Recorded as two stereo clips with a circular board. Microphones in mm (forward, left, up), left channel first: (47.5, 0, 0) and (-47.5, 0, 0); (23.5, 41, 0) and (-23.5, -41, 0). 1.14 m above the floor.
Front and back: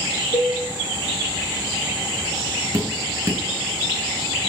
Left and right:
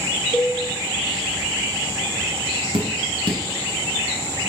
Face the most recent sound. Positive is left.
turn(degrees=-120)